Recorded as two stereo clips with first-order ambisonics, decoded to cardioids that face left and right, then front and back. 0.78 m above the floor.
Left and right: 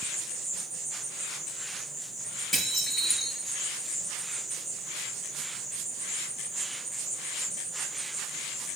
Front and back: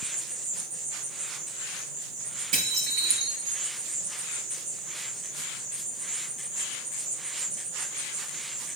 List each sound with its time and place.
0.0 s an insect: 170° right, 3.5 m
2.5 s dishes clattering: 175° left, 7 m